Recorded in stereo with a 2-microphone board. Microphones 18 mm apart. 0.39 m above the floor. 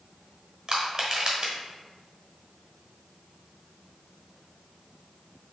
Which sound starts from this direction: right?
Crushing, at 0.7 s.